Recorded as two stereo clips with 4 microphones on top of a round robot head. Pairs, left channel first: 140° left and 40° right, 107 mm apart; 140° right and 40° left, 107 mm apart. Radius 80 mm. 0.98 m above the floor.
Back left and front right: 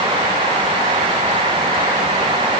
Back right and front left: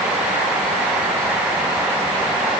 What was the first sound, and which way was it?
Only background noise.